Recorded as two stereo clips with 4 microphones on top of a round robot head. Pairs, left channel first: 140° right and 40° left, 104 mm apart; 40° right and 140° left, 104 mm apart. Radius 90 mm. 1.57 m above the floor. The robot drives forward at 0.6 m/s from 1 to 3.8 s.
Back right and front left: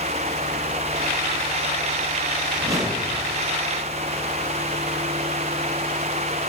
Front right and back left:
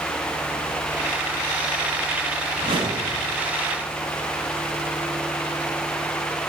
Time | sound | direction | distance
2.5 | a whoosh | 95° left | 1.3 m